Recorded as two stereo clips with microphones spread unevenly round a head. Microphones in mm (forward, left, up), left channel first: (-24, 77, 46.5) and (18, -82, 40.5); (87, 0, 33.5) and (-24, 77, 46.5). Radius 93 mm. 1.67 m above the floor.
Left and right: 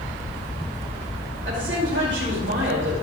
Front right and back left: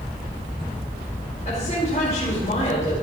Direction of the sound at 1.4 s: 90° right.